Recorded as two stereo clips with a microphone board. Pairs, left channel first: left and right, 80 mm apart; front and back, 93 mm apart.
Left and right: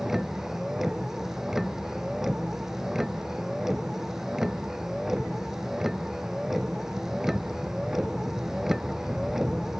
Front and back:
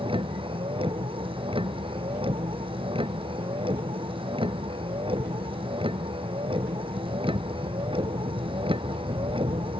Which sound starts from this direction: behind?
A vehicle, at 0.0 s.